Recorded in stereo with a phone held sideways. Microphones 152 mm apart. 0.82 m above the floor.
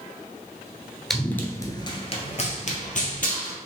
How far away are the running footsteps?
About 0.8 m.